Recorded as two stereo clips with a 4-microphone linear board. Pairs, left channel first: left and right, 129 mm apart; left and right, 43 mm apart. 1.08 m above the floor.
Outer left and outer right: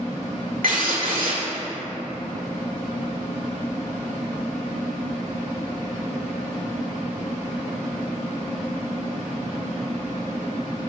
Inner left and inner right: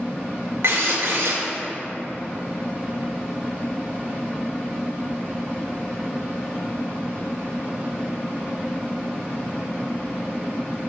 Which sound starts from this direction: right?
A drill, at 0.6 s.